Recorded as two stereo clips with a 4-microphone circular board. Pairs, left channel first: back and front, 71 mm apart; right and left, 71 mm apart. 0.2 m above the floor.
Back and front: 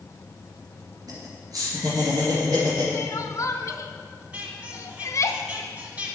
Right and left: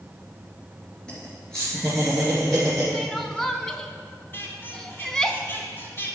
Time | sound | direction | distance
1.1 | laughter | 15° right | 3 m
2.9 | crying | 170° right | 0.6 m
4.3 | a squeak | 55° right | 1.3 m